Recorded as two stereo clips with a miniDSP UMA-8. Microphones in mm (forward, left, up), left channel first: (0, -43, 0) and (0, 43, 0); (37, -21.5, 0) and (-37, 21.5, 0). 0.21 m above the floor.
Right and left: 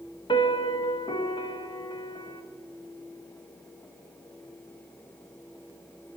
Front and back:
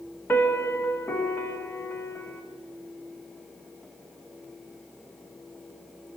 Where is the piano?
95° right, 0.8 m.